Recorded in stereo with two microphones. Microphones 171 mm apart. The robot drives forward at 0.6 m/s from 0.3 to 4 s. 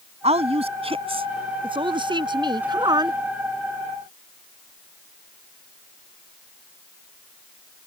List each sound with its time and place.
0.2 s a woman speaking: 40° right (ahead or behind); by 3.2 s 25° right (ahead or behind)